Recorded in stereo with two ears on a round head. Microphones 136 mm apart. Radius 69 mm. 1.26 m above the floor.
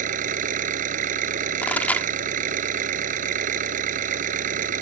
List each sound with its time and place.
0.0 s an engine running: 55° right (ahead or behind)
1.6 s a pop: 10° left (ahead or behind)